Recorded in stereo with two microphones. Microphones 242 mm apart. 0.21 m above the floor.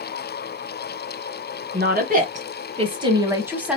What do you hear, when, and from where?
1.7 s a woman speaking: 45° right (ahead or behind), 1.5 m; by 3.8 s 5° right (ahead or behind), 1.4 m